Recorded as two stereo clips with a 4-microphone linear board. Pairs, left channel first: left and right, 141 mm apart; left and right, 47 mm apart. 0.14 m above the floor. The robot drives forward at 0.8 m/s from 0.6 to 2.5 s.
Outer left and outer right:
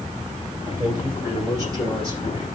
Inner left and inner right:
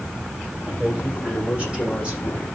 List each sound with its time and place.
0.7 s a man speaking: 25° right (ahead or behind), 6.5 m; by 2.5 s 20° right (ahead or behind), 7.5 m